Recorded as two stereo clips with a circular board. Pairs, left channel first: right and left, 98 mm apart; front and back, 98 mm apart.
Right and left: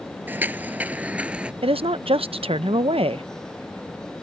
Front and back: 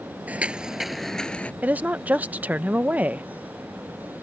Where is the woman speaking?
105° left.